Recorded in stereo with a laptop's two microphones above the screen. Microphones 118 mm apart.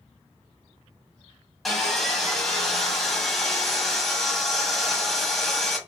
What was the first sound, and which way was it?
Sawing, centre (ahead or behind).